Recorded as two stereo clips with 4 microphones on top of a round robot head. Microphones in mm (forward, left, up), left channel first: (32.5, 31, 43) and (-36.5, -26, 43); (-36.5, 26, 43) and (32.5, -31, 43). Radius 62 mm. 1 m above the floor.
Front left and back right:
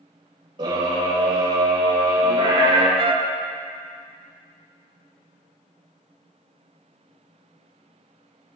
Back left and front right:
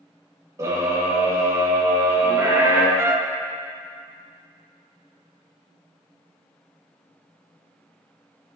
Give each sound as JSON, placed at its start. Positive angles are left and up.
{"t": 0.6, "sound": "a scream", "azimuth_deg": -95, "distance_m": 5.5}
{"t": 3.0, "sound": "a trumpet", "azimuth_deg": -105, "distance_m": 0.9}